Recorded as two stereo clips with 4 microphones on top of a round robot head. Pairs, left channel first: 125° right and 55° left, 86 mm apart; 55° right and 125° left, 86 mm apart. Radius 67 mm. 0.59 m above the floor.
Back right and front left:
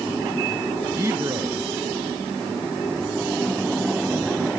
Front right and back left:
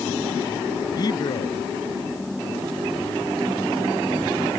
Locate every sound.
0.9 s a man speaking: 5° right